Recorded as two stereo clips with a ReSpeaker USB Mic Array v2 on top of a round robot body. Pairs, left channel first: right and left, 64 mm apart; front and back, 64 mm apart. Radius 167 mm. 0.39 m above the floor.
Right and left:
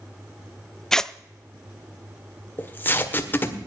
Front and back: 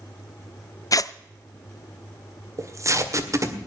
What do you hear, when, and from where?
0.9 s tearing paper: 10° right, 0.6 m
2.6 s tape being pulled: 150° right, 1.9 m